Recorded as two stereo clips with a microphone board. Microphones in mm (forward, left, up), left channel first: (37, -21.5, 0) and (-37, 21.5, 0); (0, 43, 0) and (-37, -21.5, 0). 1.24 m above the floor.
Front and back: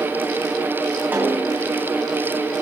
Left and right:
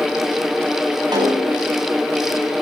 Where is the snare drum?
140° right, 9 m.